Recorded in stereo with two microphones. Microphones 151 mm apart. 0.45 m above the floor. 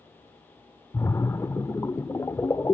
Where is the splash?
20° left (ahead or behind), 0.6 m.